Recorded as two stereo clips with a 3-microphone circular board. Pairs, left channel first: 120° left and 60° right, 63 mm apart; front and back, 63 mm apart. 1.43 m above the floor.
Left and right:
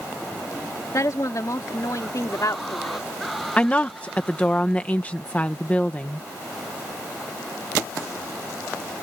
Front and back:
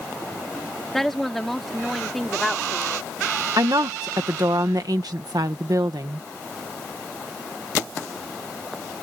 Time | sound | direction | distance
0.9 | a woman speaking | 85° left | ?
3.6 | a woman speaking | 170° right | ?